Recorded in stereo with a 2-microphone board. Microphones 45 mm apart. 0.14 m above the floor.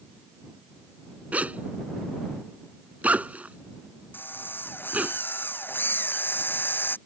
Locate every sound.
1.3 s a zipper: 30° right (ahead or behind)
4.1 s a drill: 45° left (ahead or behind)